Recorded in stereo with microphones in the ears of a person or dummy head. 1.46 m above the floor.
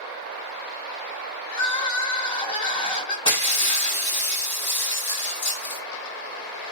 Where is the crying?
30° left (ahead or behind), 1.3 m.